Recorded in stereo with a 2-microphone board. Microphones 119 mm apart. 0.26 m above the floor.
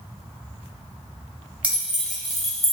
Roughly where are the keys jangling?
Centre.